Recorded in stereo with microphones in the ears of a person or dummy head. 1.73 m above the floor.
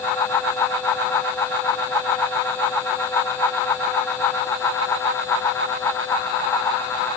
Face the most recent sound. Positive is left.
No sound to turn to.